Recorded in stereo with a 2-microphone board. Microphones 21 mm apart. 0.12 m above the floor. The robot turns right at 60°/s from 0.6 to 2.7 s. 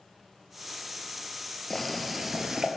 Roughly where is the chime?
No chime in this recording.